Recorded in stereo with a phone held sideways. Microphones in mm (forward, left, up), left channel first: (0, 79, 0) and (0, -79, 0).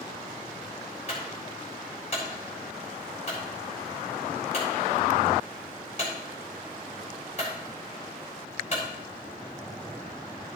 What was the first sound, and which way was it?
A clunk, 45° left (ahead or behind).